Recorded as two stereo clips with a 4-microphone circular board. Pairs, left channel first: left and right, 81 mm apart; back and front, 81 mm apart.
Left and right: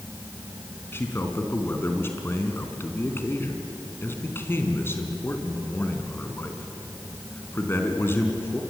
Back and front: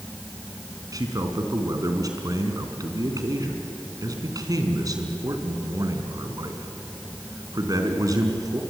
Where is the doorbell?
I don't hear a doorbell.